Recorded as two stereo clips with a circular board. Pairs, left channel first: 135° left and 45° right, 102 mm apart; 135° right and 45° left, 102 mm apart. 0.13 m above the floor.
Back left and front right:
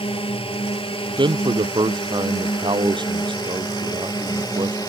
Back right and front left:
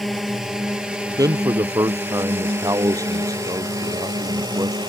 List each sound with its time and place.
0.0 s a drone: 135° left; by 4.9 s 85° left
1.2 s a man speaking: 10° right